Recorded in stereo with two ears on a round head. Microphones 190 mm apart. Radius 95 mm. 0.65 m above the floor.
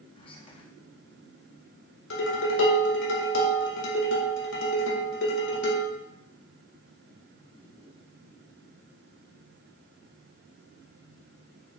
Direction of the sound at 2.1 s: 65° left (ahead or behind).